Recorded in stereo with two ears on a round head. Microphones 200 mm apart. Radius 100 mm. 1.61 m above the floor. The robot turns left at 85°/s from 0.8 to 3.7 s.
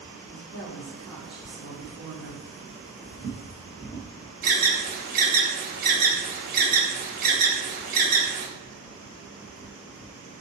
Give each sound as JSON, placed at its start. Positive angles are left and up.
{"t": 0.2, "sound": "a woman speaking", "azimuth_deg": 40, "distance_m": 1.6}
{"t": 3.1, "sound": "footsteps", "side_deg": -20, "distance_m": 1.9}
{"t": 4.4, "sound": "an alarm", "side_deg": -40, "distance_m": 1.2}